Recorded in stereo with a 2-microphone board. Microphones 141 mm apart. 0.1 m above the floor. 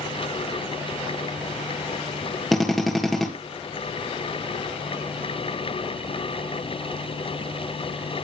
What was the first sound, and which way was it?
A drill, centre (ahead or behind).